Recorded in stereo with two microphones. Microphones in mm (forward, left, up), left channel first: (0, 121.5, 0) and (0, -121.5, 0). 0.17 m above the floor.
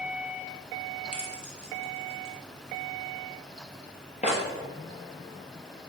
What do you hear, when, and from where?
1.1 s keys jangling: 30° left (ahead or behind), 2 m